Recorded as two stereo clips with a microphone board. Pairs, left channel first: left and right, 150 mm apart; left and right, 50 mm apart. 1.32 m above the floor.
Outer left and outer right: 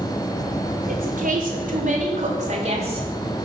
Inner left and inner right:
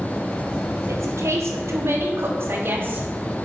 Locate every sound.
0.9 s a woman speaking: 70° right (ahead or behind), 4.5 m; by 3.1 s 35° right (ahead or behind), 2.5 m